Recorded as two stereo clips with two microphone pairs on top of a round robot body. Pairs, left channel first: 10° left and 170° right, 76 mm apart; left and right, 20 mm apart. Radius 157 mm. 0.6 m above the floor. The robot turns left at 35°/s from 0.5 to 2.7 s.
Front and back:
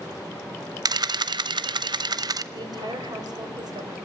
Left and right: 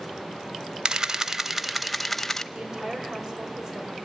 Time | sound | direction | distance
0.8 | a camera shutter | 140° right | 0.8 m
2.5 | a woman speaking | 140° right | 3.5 m